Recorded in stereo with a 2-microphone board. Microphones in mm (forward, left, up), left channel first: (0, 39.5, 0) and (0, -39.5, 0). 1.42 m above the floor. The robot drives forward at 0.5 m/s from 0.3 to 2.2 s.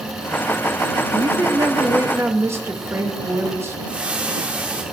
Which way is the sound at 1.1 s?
50° right (ahead or behind).